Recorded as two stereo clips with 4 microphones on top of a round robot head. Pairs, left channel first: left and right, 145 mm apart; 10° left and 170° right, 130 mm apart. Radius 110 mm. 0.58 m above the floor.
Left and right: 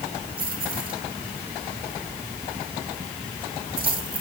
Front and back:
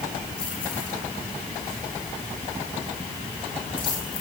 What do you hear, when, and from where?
0.4 s keys jangling: 75° right, 4.5 m